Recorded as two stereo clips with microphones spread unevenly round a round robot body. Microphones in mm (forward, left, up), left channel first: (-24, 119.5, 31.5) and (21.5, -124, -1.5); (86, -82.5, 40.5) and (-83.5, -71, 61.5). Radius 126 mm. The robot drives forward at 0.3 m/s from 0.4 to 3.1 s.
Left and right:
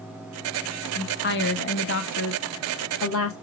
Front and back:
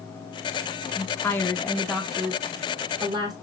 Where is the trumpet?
No trumpet in this recording.